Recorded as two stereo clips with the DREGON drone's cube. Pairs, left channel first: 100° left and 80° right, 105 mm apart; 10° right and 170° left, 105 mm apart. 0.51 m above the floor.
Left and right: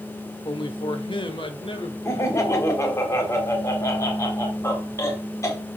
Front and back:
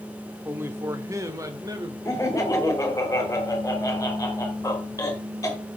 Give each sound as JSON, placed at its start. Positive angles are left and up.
{"t": 0.5, "sound": "a man speaking", "azimuth_deg": 105, "distance_m": 1.1}
{"t": 2.0, "sound": "laughter", "azimuth_deg": 45, "distance_m": 3.0}